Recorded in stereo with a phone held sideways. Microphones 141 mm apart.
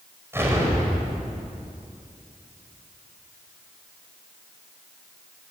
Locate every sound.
0.3 s an explosion: 20° right (ahead or behind), 5.5 m